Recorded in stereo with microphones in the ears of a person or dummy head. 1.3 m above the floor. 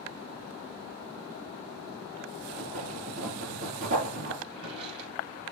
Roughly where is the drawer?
Right.